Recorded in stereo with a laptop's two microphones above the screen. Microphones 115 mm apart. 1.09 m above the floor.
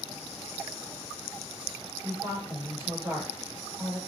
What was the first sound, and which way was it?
A woman speaking, 30° right (ahead or behind).